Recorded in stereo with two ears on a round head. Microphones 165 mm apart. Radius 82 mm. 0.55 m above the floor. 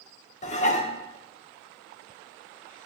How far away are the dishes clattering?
About 0.8 m.